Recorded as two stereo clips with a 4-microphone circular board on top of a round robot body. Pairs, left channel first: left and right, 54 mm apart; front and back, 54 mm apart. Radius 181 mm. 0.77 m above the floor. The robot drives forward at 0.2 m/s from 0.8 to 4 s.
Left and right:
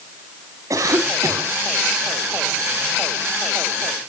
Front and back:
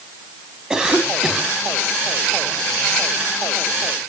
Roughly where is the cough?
Right.